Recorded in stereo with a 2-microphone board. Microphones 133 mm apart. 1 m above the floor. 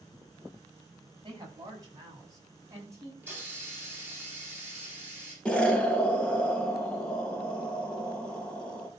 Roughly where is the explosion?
Centre.